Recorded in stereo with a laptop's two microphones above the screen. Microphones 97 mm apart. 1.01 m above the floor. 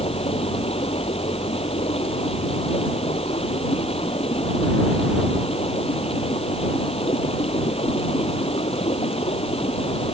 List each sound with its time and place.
0.0 s running water: 85° left